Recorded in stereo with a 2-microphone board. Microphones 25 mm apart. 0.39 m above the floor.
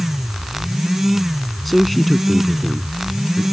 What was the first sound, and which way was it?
A man speaking, 5° left (ahead or behind).